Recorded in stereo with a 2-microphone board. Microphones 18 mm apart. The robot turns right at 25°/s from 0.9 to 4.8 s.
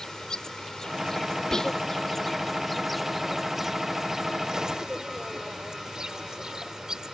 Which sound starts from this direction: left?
Whispering, at 1.5 s.